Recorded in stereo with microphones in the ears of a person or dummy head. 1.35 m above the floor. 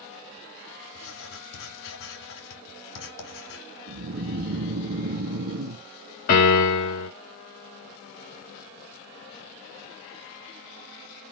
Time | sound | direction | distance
0.9 | writing | 75° left (ahead or behind) | 1.8 m
3.9 | snoring | 50° right (ahead or behind) | 0.7 m
6.3 | a piano | 45° left (ahead or behind) | 2 m